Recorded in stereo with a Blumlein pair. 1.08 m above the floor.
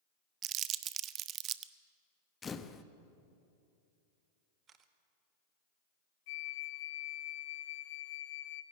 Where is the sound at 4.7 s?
25° right, 1.5 m.